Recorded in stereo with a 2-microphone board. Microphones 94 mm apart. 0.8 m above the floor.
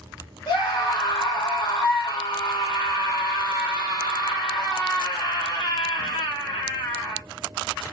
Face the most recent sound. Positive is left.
turn(degrees=55)  # may be behind; listen again after turning